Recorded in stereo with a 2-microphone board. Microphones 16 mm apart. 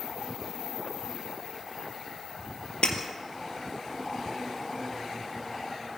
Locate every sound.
2.8 s breaking glass: 60° left (ahead or behind), 2.5 m